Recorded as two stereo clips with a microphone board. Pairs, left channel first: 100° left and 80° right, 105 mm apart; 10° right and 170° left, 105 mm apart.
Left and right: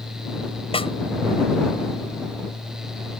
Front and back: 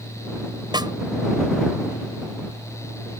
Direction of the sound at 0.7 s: 125° left.